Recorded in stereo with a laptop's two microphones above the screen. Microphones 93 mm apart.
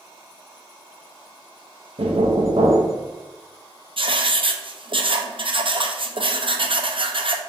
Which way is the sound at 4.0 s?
65° right (ahead or behind).